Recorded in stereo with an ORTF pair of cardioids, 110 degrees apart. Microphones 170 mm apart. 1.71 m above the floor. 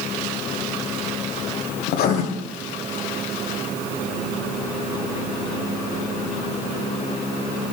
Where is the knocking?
No knocking in this recording.